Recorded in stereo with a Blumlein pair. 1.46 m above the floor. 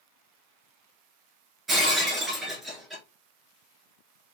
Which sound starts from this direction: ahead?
Breaking glass, at 1.7 s.